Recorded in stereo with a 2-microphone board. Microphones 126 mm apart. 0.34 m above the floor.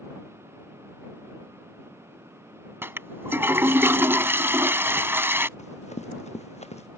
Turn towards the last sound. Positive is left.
turn(degrees=60)  # may be behind; listen again after turning